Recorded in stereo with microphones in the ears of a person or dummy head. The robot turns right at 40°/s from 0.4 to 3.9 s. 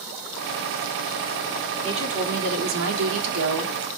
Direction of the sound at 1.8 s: 150° right.